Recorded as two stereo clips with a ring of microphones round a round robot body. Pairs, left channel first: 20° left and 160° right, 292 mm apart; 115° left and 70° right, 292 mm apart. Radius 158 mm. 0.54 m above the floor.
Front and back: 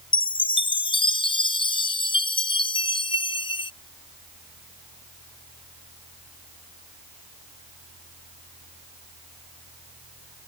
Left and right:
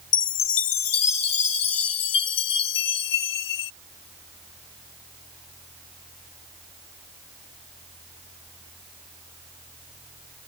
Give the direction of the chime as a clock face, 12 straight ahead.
9 o'clock.